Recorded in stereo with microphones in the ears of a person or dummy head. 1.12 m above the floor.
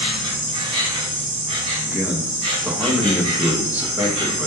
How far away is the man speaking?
About 0.5 m.